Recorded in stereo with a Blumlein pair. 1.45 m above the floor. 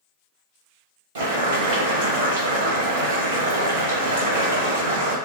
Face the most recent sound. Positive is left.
turn(degrees=-55)